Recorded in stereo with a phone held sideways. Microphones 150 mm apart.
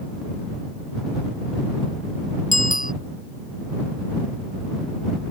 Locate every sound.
2.5 s a bicycle bell: 60° left (ahead or behind)